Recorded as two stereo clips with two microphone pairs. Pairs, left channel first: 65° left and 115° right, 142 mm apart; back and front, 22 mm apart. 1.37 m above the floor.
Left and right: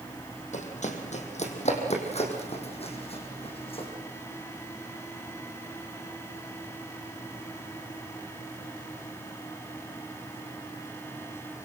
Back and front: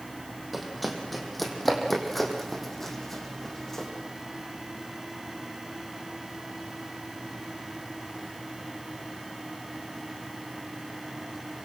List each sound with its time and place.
0.5 s running footsteps: 90° left, 3.5 m; by 3.9 s 110° left, 5 m